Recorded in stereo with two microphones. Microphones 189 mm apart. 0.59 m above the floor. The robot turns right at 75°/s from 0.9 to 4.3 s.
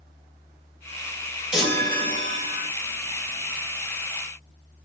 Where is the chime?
5° right, 1.5 m; by 2.7 s 80° left, 1.5 m.